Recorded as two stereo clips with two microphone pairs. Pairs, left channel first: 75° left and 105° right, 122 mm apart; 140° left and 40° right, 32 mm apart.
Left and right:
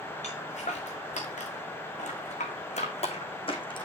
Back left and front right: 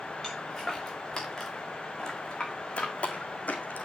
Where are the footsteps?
55° left, 5 m; by 3.9 s 125° left, 2.5 m.